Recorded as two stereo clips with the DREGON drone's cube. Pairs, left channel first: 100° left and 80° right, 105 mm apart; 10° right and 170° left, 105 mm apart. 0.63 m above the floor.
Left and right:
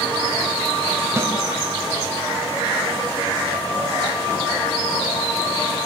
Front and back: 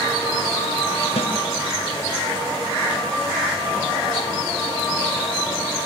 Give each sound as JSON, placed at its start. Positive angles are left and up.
{"t": 1.2, "sound": "a snare drum", "azimuth_deg": -15, "distance_m": 3.5}